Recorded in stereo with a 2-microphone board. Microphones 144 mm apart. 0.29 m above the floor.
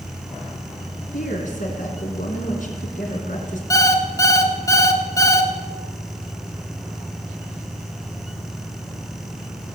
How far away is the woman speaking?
About 3 m.